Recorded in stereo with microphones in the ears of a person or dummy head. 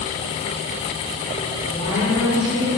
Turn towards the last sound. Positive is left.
turn(degrees=20)  # may be behind; listen again after turning